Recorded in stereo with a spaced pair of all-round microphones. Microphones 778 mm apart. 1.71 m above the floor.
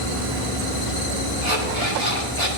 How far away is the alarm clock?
About 7.5 m.